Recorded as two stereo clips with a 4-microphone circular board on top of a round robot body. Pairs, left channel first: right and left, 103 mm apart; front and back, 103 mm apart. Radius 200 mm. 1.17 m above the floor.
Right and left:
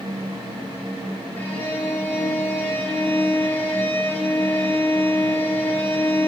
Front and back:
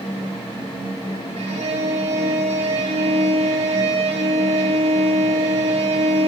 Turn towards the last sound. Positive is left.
turn(degrees=-160)